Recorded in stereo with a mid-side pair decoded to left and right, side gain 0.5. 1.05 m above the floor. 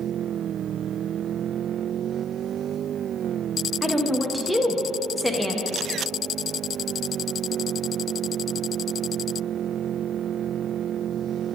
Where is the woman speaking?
Straight ahead, 0.9 m.